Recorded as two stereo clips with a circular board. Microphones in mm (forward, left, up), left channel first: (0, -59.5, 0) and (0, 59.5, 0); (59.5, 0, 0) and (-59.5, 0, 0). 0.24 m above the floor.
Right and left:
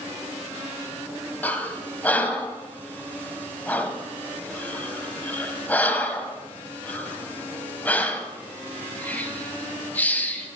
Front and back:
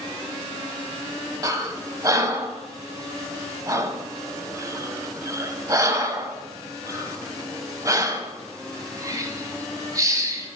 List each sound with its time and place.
1.4 s breathing: 155° right, 0.9 m